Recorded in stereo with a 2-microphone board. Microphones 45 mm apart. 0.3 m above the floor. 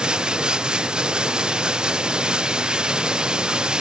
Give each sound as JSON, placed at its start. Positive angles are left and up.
{"t": 0.0, "sound": "running water", "side_deg": -20}